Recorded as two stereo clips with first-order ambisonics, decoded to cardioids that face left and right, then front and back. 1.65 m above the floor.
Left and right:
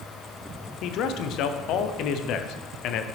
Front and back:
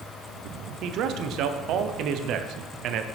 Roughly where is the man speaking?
Behind left.